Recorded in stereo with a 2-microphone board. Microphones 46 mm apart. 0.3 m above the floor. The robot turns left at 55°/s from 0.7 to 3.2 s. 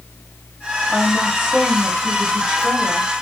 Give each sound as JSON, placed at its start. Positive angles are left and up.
{"t": 0.9, "sound": "a woman speaking", "side_deg": -5, "distance_m": 1.4}